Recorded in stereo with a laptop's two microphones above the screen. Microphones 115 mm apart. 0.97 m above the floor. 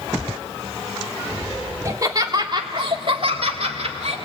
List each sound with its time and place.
1.9 s laughter: 30° right (ahead or behind), 2.5 m; by 4.2 s 70° right (ahead or behind), 2.5 m